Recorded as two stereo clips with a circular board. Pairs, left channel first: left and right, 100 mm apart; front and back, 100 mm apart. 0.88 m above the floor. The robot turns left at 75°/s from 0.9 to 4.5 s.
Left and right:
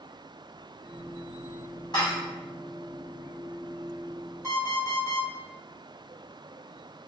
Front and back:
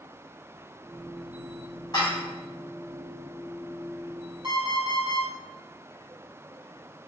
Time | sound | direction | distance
1.9 | dishes clattering | 50° left | 1.4 m
4.4 | an alarm clock | 150° left | 1.4 m